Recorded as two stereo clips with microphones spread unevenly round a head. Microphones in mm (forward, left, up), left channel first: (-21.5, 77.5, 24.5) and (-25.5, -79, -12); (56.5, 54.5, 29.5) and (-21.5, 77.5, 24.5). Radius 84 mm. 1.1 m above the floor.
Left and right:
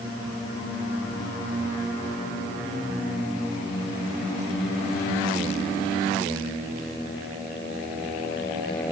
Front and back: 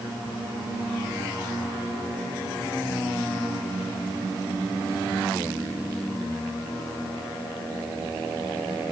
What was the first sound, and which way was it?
Only background noise.